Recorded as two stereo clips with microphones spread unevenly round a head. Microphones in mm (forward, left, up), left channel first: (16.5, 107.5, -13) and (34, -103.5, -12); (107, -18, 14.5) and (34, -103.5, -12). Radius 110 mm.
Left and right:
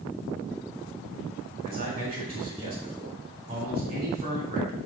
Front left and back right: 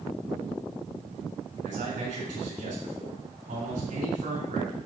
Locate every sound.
1.6 s a man speaking: 150° right, 4 m